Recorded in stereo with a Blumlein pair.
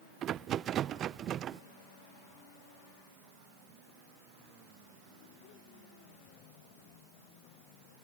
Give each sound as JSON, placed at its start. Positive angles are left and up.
{"t": 0.2, "sound": "a rattle", "azimuth_deg": -30}